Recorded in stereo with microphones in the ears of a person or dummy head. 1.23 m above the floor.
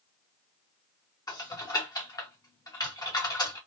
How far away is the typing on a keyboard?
About 0.9 m.